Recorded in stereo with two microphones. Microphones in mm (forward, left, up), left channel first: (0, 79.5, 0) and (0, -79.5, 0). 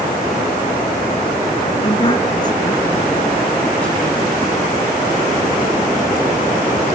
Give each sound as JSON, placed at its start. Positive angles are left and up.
{"t": 1.8, "sound": "a woman speaking", "side_deg": 35, "distance_m": 3.0}